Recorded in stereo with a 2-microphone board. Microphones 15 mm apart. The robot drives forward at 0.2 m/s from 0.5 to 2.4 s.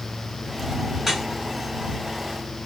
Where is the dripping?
20° right (ahead or behind), 1.9 m.